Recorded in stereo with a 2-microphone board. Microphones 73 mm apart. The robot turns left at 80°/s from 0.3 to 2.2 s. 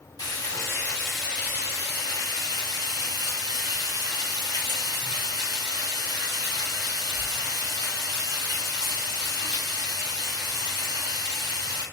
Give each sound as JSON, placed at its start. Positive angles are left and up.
{"t": 0.2, "sound": "frying", "azimuth_deg": 65, "distance_m": 1.5}